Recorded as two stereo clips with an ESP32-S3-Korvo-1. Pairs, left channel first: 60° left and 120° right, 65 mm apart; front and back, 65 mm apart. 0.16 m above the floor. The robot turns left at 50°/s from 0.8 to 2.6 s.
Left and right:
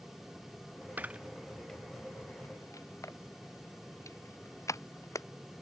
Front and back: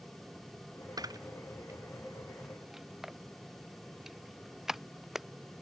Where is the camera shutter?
Straight behind; by 5.3 s 95° left.